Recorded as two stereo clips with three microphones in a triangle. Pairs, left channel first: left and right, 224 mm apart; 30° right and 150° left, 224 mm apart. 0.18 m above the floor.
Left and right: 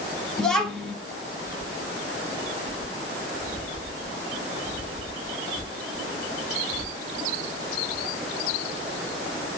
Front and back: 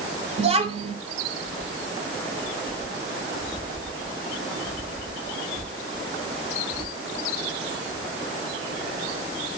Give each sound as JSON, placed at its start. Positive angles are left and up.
{"t": 0.4, "sound": "a child speaking", "azimuth_deg": 175, "distance_m": 1.1}